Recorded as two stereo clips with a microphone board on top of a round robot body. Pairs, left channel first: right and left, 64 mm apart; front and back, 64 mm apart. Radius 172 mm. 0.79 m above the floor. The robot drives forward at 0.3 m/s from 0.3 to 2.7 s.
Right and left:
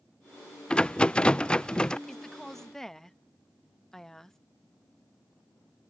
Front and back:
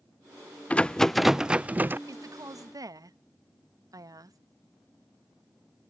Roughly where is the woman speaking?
Behind.